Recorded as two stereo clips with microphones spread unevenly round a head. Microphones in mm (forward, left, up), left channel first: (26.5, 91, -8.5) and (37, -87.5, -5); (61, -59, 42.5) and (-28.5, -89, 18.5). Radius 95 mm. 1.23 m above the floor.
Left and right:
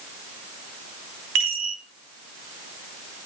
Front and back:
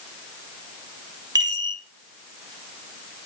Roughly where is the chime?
Behind right.